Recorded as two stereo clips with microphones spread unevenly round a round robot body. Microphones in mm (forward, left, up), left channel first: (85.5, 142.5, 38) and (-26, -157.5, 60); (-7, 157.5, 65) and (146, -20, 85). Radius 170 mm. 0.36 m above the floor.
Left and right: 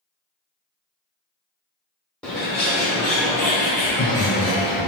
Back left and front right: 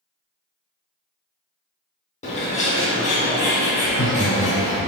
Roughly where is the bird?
Behind left.